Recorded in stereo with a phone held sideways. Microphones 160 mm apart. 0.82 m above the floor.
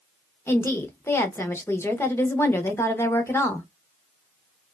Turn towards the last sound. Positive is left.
turn(degrees=15)  # may be behind; listen again after turning